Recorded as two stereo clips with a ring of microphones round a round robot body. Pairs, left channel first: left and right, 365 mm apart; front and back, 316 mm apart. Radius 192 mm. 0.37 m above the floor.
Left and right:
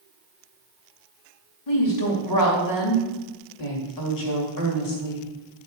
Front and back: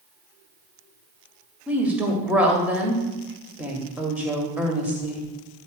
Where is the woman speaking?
95° left, 2 m.